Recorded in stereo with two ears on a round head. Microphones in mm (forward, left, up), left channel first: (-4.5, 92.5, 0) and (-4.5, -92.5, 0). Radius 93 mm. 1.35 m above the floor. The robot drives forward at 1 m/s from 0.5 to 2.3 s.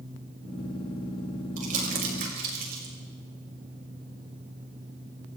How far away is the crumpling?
About 7.5 m.